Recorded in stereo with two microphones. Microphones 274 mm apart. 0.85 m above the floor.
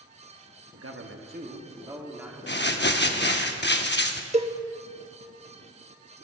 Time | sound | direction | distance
0.7 | a man speaking | 60° right (ahead or behind) | 1.0 m
2.5 | crumpling | 40° left (ahead or behind) | 0.8 m
4.3 | a cowbell | 25° right (ahead or behind) | 0.6 m